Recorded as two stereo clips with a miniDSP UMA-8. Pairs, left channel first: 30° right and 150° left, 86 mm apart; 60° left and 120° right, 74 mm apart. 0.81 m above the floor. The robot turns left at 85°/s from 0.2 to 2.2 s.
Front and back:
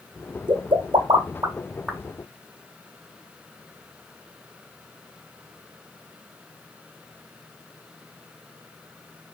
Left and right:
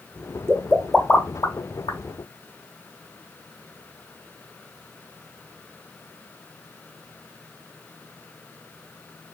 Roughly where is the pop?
Behind.